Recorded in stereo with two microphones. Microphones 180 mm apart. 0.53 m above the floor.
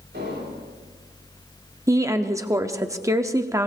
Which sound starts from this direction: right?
An explosion, at 0.1 s.